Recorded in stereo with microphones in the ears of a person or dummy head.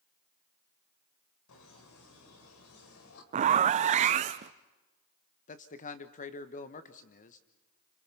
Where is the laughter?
75° left (ahead or behind), 4 m.